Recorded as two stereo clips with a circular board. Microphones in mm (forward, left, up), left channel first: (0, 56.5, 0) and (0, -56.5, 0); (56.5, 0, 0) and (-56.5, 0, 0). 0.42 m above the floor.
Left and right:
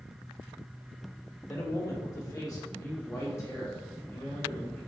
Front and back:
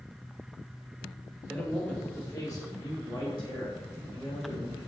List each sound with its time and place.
1.5 s a man speaking: 80° left, 0.9 m; by 4.8 s 25° left, 2 m